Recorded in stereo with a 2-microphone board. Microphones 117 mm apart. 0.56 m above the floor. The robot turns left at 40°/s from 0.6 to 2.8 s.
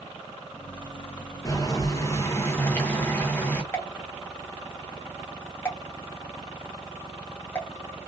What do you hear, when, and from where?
1.4 s boiling: 25° left (ahead or behind), 0.7 m; by 3.6 s 20° left (ahead or behind), 0.7 m
3.7 s a pop: 20° left (ahead or behind), 0.9 m